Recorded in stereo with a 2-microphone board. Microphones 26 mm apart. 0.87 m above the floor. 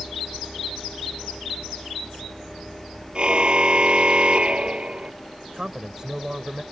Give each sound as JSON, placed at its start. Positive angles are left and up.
{"t": 3.1, "sound": "a car horn", "side_deg": -40}
{"t": 5.5, "sound": "a man speaking", "side_deg": -25}